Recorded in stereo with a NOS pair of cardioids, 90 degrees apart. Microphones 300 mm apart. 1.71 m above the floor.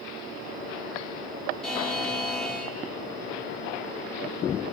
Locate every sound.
1.6 s a buzzer: straight ahead, 4 m